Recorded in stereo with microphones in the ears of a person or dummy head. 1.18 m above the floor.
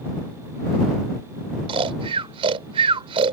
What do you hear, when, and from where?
1.7 s snoring: 30° right (ahead or behind)